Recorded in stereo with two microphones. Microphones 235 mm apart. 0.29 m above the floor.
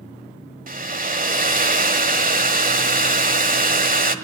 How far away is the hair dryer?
About 1.4 m.